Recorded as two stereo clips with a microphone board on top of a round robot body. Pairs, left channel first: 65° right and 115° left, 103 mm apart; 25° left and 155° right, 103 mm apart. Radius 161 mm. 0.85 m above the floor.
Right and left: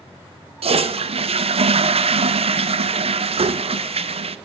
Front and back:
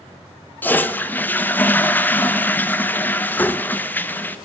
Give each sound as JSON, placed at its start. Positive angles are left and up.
{"t": 0.6, "sound": "a toilet flushing", "azimuth_deg": 95, "distance_m": 0.7}